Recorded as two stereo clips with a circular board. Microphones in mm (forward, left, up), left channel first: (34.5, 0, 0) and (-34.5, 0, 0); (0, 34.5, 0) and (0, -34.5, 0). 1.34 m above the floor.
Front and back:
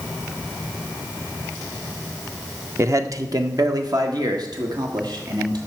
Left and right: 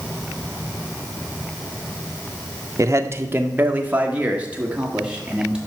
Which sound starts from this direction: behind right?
A man speaking, at 2.8 s.